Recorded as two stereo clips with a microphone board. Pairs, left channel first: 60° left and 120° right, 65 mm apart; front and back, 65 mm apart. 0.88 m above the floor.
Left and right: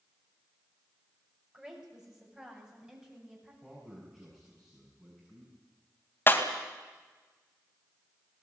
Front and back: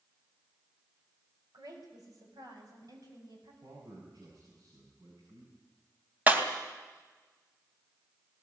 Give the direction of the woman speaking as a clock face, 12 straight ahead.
7 o'clock.